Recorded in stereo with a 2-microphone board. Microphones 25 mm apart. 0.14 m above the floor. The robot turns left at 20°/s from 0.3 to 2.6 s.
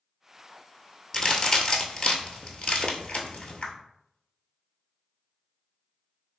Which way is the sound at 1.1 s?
30° left (ahead or behind).